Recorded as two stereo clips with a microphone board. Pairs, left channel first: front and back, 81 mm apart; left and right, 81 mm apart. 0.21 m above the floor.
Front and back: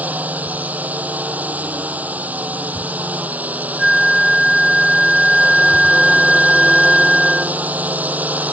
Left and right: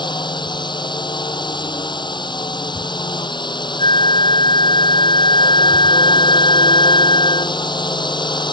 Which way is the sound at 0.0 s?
110° left.